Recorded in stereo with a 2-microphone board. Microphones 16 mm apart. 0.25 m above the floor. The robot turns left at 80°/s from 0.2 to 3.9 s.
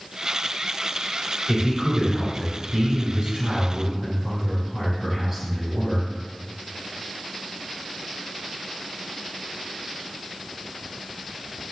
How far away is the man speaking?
About 3 m.